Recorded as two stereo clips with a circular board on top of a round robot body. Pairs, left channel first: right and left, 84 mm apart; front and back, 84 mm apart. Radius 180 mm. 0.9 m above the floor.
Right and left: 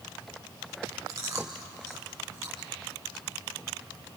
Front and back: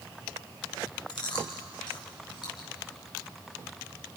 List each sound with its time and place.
1.1 s chewing: 35° left, 3.5 m